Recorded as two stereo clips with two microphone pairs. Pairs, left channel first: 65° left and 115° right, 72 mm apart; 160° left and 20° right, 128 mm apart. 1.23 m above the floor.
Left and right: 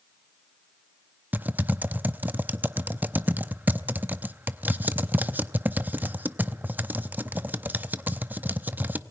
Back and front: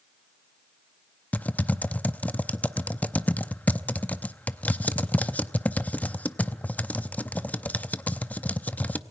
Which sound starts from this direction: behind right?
Typing on a keyboard, at 1.3 s.